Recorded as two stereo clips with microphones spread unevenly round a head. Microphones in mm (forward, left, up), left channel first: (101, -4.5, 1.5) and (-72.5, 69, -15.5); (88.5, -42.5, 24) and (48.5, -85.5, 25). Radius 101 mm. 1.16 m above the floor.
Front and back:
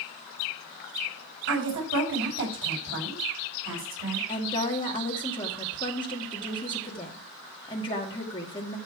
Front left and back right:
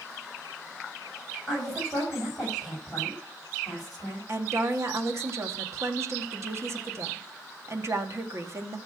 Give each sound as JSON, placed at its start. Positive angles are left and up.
{"t": 1.5, "sound": "a woman speaking", "azimuth_deg": 140, "distance_m": 6.5}
{"t": 4.3, "sound": "a woman speaking", "azimuth_deg": -95, "distance_m": 2.0}